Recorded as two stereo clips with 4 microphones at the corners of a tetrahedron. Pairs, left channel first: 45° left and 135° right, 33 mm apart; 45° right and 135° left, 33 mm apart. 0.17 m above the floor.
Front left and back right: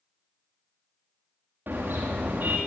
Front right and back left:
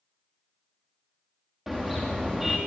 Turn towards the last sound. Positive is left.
turn(degrees=-145)